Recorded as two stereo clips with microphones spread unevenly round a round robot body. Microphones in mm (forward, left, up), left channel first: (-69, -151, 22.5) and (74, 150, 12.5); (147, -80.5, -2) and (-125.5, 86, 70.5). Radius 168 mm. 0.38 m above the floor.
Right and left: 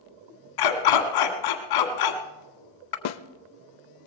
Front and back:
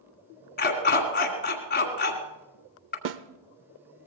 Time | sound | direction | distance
0.6 | a dog barking | 90° right | 1.8 m
3.0 | a snare drum | 155° right | 0.6 m